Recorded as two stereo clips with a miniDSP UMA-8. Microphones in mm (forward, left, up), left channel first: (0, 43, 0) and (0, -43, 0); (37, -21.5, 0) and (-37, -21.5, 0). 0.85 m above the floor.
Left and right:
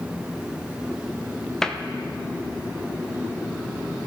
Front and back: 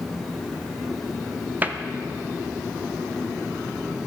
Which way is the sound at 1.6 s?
165° left.